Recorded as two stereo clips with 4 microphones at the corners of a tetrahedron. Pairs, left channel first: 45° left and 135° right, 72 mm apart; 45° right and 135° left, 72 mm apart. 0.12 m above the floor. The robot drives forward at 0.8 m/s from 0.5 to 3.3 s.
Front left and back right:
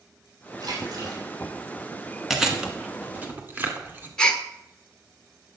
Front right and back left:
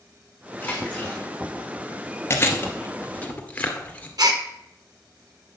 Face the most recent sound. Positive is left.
turn(degrees=120)